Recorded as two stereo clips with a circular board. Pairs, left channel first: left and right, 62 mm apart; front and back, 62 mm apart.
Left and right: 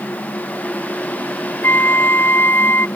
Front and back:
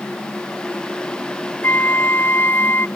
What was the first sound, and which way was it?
A flute, 45° left.